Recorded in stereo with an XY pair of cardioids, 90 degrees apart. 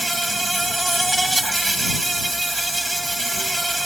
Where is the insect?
10° right.